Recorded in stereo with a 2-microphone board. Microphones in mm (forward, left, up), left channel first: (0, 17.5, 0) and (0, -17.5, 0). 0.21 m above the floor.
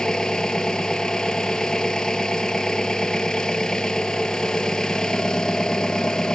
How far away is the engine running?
About 1.5 m.